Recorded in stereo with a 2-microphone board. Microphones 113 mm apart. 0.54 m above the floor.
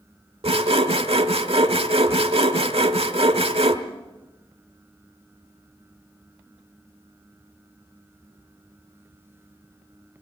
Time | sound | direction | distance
0.4 | sawing | 65° right (ahead or behind) | 1.1 m